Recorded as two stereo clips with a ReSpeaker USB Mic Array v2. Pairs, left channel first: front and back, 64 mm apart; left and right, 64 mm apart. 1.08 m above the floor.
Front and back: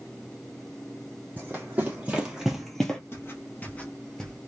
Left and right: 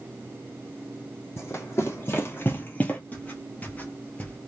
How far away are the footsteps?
About 1.5 m.